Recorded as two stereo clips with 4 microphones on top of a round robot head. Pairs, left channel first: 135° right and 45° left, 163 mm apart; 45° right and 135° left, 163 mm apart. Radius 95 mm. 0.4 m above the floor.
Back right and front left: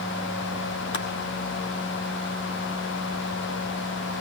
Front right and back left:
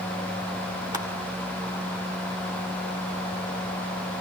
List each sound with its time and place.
0.9 s crushing: 155° right, 2.5 m